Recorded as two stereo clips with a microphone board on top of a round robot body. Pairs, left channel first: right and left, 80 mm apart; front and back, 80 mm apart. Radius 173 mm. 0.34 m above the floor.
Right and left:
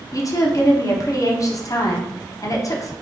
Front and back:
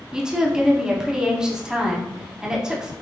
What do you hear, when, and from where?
0.1 s a woman speaking: 105° right, 1.2 m